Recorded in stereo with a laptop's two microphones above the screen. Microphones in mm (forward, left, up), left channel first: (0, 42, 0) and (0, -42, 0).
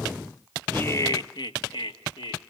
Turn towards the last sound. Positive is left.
turn(degrees=80)